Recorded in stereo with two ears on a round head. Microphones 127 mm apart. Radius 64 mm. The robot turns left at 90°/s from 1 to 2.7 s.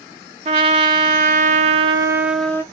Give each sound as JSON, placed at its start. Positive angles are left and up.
{"t": 0.5, "sound": "a trumpet", "azimuth_deg": -55, "distance_m": 0.7}